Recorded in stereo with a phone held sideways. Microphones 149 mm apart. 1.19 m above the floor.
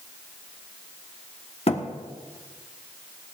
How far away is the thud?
About 1.2 m.